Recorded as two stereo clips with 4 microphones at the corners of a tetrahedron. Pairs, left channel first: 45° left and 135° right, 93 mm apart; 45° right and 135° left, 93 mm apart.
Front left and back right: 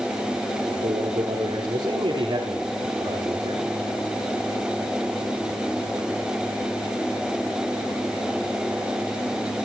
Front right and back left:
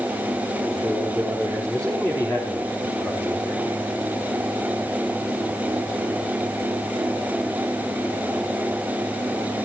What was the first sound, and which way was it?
A man speaking, 130° right.